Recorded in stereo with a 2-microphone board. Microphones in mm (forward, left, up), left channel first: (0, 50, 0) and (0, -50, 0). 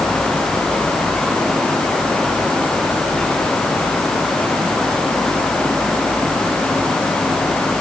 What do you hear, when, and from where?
Only background noise.